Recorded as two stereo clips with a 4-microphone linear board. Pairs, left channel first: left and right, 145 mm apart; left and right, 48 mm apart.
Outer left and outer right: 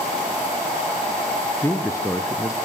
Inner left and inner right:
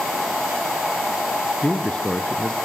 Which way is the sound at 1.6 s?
20° left (ahead or behind).